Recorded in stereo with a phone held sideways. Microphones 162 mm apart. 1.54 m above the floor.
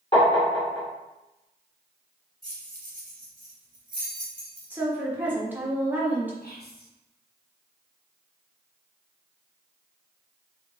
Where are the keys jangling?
55° right (ahead or behind), 1.3 m.